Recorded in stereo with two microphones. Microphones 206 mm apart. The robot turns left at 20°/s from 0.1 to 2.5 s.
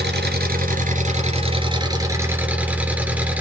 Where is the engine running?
125° right, 2.5 m; by 3.4 s 175° right, 2.5 m.